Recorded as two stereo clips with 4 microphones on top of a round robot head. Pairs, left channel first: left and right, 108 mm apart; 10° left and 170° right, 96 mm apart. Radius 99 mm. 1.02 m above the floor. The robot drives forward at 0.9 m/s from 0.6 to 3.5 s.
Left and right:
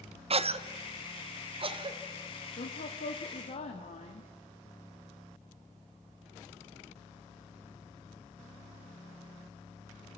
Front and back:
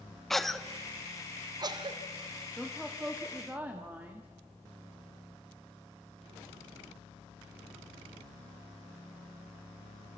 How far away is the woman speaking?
About 2 m.